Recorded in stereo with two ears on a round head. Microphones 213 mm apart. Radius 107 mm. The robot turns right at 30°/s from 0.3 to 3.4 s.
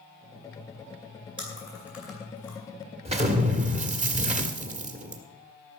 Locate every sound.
1.4 s chewing: 20° right (ahead or behind), 5 m; by 2.6 s 15° left (ahead or behind), 5 m
3.0 s an explosion: 25° right (ahead or behind), 1.4 m; by 5.2 s 30° right (ahead or behind), 1.4 m